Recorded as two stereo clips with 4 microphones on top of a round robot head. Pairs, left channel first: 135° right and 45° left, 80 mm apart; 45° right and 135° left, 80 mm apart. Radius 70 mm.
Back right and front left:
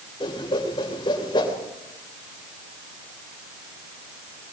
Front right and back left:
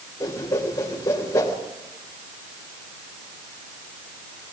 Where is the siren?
No siren in this recording.